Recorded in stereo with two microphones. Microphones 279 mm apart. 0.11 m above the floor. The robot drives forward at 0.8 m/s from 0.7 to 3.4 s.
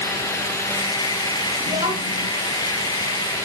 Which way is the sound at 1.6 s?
30° right (ahead or behind).